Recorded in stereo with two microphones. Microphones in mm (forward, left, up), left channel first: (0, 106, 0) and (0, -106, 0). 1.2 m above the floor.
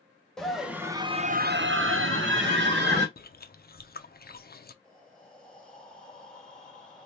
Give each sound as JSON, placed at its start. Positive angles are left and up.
{"t": 0.4, "sound": "a scream", "side_deg": 0, "distance_m": 1.2}
{"t": 3.2, "sound": "chewing", "side_deg": 45, "distance_m": 0.5}
{"t": 4.8, "sound": "breathing", "side_deg": 5, "distance_m": 1.3}